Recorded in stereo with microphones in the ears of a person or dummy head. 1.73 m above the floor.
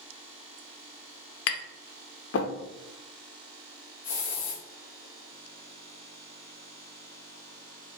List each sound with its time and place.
1.5 s tapping: 75° left (ahead or behind), 0.6 m
4.0 s a hiss: 15° left (ahead or behind), 1.2 m